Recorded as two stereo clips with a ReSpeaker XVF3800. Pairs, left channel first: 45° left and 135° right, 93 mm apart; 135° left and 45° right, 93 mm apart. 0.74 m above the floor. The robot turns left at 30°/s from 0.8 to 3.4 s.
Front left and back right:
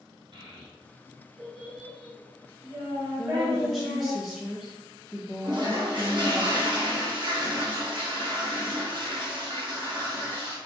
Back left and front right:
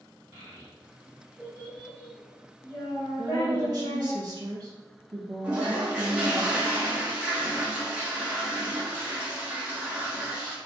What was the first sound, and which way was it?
A child speaking, 105° right.